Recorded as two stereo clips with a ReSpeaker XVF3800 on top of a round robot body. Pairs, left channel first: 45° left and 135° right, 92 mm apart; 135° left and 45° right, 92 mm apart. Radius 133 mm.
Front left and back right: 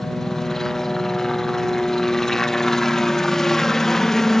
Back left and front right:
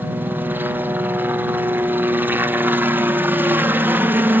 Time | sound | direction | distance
0.0 | a helicopter | 35° right | ?